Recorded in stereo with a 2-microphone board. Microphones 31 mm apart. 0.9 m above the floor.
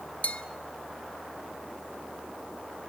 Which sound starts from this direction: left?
A bell, at 0.2 s.